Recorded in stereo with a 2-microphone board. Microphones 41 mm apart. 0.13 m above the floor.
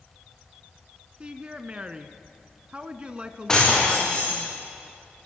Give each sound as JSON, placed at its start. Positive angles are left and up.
{"t": 1.2, "sound": "a woman speaking", "side_deg": -25, "distance_m": 1.3}
{"t": 3.5, "sound": "breaking glass", "side_deg": 15, "distance_m": 9.5}